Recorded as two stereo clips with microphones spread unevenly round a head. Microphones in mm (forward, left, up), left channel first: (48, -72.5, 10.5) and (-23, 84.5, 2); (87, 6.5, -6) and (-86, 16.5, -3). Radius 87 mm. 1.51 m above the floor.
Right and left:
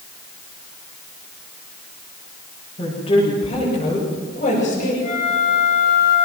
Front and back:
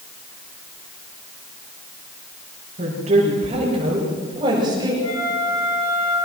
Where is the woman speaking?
130° right, 7.5 m; by 4.9 s 115° right, 7.5 m.